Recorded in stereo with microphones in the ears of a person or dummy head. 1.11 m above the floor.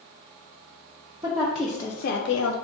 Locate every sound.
1.2 s a woman speaking: 25° right (ahead or behind), 0.8 m; by 2.5 s 75° left (ahead or behind), 0.8 m